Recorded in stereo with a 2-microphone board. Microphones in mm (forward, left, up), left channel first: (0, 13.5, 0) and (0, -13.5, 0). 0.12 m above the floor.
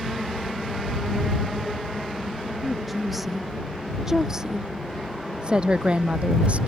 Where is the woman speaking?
Centre (ahead or behind); by 6.7 s 50° right (ahead or behind).